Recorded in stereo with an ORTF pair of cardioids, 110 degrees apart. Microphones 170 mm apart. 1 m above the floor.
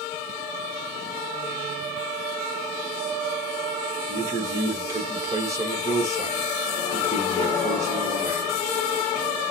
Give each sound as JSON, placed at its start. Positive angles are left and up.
{"t": 4.1, "sound": "a man speaking", "azimuth_deg": -20, "distance_m": 1.1}